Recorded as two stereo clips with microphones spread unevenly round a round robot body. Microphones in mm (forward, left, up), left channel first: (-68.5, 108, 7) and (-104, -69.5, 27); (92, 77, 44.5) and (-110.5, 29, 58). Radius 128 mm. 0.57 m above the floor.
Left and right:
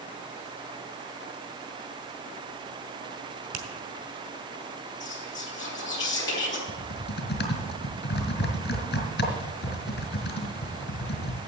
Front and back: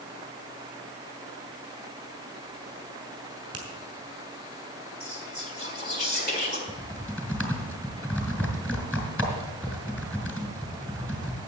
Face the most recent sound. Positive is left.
turn(degrees=100)